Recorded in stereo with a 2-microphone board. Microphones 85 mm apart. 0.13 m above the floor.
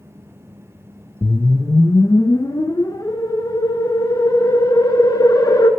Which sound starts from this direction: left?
A whoosh, at 1.2 s.